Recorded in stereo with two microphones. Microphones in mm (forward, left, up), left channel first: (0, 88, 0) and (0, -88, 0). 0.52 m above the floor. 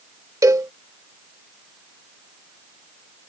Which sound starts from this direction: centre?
A cowbell, at 0.4 s.